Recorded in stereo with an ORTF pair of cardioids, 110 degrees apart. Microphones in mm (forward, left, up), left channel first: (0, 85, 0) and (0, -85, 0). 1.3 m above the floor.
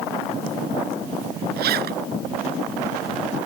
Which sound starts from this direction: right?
A zipper, at 1.6 s.